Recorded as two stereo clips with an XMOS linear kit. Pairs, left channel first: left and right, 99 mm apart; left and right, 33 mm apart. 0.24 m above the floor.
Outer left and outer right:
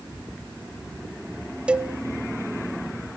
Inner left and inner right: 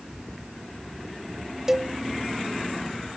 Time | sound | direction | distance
1.7 | a cowbell | 10° right (ahead or behind) | 0.5 m